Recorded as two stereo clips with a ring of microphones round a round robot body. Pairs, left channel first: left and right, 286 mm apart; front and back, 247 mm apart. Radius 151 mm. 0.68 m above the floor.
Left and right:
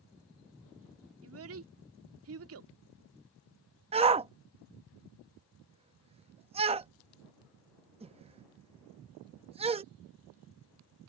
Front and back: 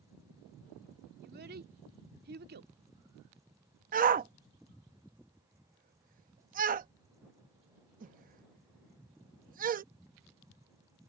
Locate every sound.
1.2 s a child speaking: 130° right
3.9 s a shout: 150° right